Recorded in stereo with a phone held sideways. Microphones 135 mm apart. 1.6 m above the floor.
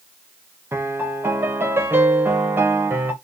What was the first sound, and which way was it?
A piano, 15° right (ahead or behind).